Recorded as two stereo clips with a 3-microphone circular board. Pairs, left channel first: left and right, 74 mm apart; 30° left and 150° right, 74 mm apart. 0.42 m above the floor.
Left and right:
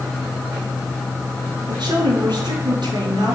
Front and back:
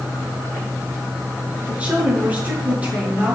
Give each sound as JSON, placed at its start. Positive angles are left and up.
{"t": 1.7, "sound": "a woman speaking", "azimuth_deg": -80, "distance_m": 8.0}